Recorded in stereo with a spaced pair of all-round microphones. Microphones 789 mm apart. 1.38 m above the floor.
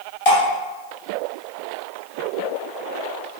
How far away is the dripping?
About 2 m.